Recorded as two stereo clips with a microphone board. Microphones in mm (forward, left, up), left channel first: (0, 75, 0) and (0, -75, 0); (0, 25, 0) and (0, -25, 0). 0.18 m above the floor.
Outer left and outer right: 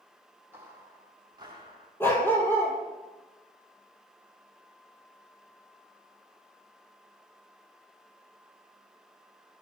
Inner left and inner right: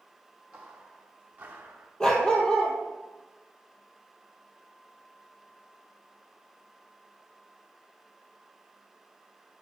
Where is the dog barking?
15° left (ahead or behind), 2.0 m.